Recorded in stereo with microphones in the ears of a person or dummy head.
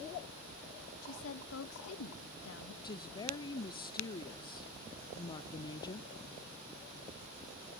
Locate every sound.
1.0 s a woman speaking: 80° left, 1.9 m
2.8 s a woman speaking: 20° left (ahead or behind), 0.9 m